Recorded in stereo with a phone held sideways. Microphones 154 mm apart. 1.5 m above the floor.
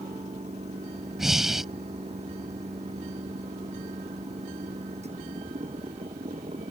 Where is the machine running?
45° right (ahead or behind).